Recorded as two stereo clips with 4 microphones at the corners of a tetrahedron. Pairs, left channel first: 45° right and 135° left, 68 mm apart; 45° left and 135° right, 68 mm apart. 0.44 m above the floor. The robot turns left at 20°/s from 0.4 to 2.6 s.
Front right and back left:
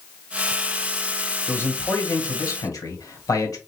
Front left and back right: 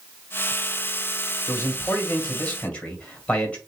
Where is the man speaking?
Straight ahead, 1.7 m; by 3.6 s 25° right, 1.7 m.